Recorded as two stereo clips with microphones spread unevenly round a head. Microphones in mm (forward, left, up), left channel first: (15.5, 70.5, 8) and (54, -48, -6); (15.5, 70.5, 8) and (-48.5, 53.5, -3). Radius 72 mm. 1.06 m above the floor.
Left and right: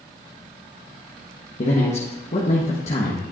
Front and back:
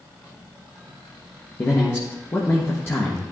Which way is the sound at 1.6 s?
70° left.